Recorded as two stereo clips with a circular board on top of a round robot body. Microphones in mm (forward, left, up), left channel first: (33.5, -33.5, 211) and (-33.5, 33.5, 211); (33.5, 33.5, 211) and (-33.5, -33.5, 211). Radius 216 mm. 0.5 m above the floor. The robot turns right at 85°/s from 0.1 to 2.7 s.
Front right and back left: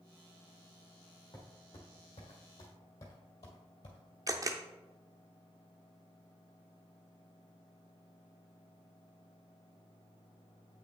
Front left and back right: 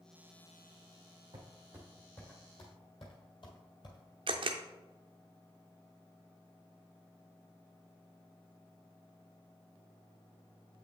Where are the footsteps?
95° right, 2.5 m; by 4.0 s 5° right, 1.1 m.